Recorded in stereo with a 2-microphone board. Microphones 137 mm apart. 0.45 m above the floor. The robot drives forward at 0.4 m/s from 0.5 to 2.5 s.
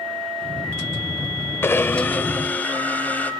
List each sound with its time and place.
1.6 s a blender: 20° left (ahead or behind), 0.7 m; by 3.3 s 15° left (ahead or behind), 1.1 m